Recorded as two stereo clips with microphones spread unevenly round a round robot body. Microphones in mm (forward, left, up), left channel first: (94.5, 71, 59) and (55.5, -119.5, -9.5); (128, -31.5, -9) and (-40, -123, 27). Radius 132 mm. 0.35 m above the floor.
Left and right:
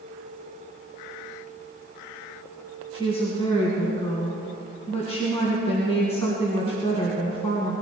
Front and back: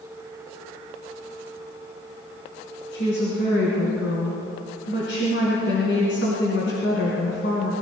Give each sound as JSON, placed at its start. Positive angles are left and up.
{"t": 2.9, "sound": "a woman speaking", "azimuth_deg": 15, "distance_m": 3.5}